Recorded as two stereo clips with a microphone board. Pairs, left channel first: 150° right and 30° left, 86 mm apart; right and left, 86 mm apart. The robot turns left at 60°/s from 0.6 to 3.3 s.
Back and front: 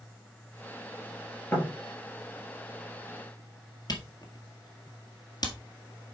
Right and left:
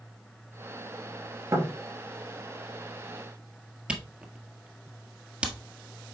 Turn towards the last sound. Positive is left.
turn(degrees=165)